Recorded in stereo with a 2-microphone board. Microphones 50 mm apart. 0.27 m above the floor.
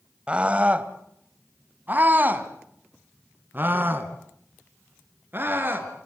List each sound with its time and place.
0.3 s a scream: 20° right (ahead or behind), 1.4 m; by 5.9 s 40° right (ahead or behind), 4.5 m